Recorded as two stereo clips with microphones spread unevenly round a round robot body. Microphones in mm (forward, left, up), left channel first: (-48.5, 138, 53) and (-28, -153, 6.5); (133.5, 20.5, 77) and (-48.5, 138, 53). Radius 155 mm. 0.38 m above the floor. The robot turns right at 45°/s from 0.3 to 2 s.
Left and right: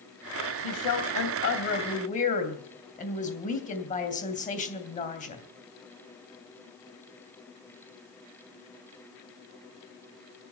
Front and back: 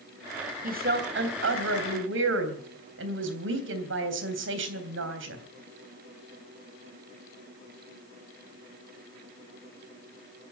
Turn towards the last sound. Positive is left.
turn(degrees=160)